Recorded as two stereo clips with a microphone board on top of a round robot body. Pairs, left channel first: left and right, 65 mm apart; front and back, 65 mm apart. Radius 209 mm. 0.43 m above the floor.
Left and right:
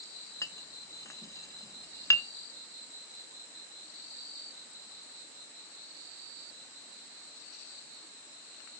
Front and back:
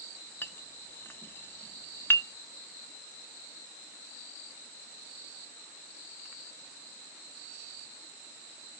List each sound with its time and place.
0.4 s a clink: 55° left, 0.9 m